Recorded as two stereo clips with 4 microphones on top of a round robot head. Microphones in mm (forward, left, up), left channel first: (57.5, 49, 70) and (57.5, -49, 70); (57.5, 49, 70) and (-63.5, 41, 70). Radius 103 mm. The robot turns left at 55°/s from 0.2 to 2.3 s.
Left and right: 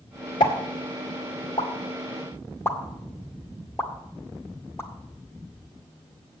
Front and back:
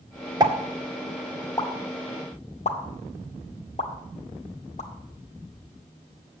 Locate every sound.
0.4 s a pop: 130° left, 2.0 m; by 4.9 s 25° left, 2.0 m